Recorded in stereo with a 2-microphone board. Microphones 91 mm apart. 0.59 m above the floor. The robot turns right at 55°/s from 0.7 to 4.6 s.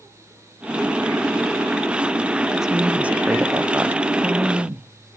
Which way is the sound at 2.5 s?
5° right (ahead or behind).